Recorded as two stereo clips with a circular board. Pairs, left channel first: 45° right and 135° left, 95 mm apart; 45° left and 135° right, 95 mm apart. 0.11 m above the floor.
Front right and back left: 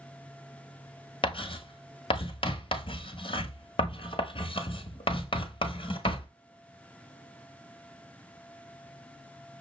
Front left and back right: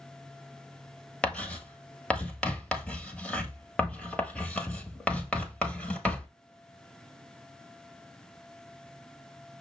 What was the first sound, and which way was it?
Writing, 35° right.